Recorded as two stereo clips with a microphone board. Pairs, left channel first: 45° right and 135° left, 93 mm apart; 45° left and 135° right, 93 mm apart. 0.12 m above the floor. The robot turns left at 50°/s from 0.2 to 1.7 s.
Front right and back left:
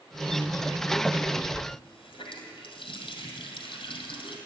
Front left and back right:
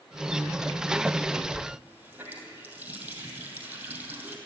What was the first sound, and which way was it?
A running tap, 60° right.